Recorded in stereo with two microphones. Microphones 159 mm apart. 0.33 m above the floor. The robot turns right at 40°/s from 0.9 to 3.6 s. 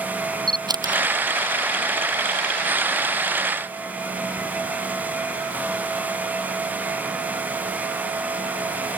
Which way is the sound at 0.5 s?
30° right (ahead or behind).